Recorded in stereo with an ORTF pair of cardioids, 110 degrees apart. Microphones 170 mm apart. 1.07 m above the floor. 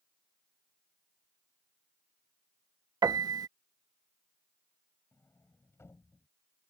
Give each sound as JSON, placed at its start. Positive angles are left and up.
{"t": 3.0, "sound": "a piano", "azimuth_deg": -20}
{"t": 5.1, "sound": "a sliding door", "azimuth_deg": 15}